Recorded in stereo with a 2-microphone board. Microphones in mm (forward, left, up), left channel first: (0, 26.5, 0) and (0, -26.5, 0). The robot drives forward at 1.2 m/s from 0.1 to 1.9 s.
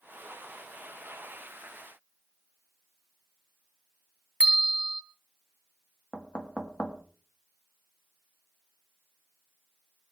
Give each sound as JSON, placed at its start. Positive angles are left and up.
{"t": 4.4, "sound": "a bell", "side_deg": -20, "distance_m": 1.6}
{"t": 6.1, "sound": "knocking", "side_deg": 20, "distance_m": 1.9}